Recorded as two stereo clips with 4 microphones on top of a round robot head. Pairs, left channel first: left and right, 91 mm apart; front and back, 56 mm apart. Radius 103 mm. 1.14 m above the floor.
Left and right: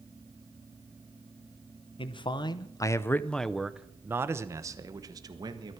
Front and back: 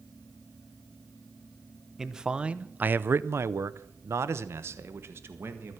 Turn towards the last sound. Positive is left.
turn(degrees=-130)